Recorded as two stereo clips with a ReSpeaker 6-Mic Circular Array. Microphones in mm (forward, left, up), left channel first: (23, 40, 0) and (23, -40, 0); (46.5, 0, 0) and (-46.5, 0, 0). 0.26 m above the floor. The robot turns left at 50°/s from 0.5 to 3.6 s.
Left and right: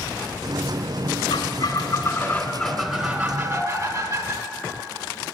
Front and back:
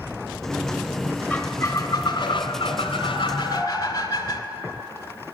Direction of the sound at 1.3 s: 75° left.